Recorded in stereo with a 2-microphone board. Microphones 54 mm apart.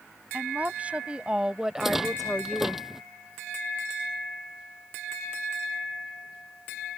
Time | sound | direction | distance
0.3 | a woman speaking | 30° right (ahead or behind) | ?
1.8 | a rattle | 5° right (ahead or behind) | ?